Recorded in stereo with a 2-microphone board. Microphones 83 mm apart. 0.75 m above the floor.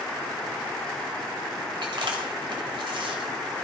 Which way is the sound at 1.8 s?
80° right.